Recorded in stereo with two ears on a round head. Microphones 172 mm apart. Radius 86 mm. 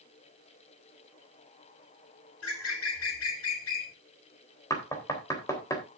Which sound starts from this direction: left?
A bird, at 2.4 s.